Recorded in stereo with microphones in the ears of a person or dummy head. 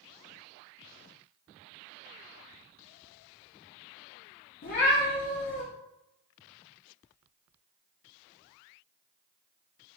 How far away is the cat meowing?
About 0.7 m.